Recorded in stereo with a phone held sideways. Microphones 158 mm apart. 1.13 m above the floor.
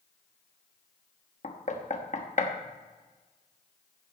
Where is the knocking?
50° left (ahead or behind), 1.2 m.